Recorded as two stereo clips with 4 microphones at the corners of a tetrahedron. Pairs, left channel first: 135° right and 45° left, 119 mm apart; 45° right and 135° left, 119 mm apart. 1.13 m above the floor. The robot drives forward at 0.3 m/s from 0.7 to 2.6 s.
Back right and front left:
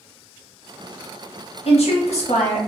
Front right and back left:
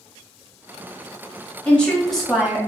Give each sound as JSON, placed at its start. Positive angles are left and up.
{"t": 1.6, "sound": "a woman speaking", "azimuth_deg": -125, "distance_m": 0.8}